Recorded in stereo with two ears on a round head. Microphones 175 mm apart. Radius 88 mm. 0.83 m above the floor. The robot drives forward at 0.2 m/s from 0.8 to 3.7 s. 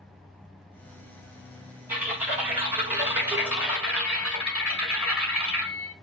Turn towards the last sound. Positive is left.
turn(degrees=-10)  # may be behind; listen again after turning